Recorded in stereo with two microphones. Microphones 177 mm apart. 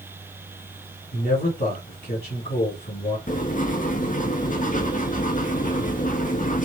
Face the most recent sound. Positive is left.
turn(degrees=50)  # may be behind; listen again after turning